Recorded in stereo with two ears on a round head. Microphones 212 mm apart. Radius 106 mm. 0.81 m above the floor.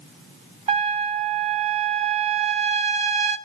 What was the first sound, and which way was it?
A trumpet, 30° right (ahead or behind).